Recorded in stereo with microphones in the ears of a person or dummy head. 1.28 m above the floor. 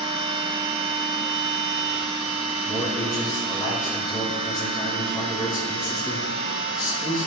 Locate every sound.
0.0 s a machine running: 30° right (ahead or behind), 1.0 m
2.6 s a man speaking: 20° left (ahead or behind), 2.5 m